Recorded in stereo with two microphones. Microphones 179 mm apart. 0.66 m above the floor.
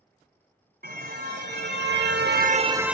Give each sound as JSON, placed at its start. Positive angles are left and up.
{"t": 0.8, "sound": "a car horn", "side_deg": -65, "distance_m": 2.0}